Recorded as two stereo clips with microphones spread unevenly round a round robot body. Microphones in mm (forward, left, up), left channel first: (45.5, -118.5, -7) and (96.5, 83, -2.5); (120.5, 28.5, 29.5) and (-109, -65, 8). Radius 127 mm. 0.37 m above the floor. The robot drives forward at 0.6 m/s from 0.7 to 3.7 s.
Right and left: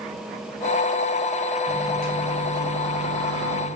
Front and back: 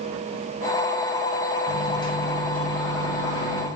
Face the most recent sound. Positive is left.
turn(degrees=135)